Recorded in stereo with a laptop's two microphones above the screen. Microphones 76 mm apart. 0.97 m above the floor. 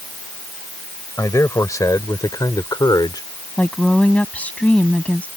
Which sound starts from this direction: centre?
A woman speaking, at 3.6 s.